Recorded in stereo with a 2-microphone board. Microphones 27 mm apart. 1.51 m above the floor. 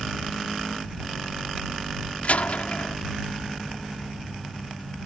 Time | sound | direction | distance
2.2 | a door slam | 65° left (ahead or behind) | ?